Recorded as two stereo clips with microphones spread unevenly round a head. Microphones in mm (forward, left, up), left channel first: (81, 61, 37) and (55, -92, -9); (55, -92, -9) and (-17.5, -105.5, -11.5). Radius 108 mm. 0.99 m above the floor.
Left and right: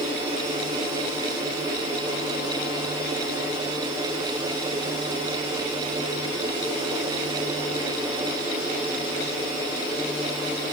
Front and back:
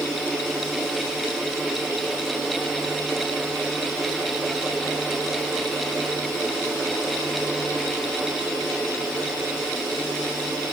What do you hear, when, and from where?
Only background noise.